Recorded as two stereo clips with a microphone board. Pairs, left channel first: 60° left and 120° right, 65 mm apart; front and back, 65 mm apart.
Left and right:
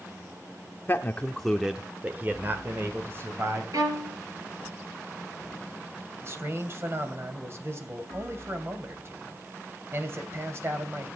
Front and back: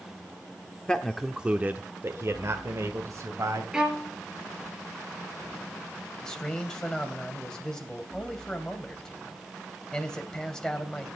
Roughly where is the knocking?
I don't hear knocking.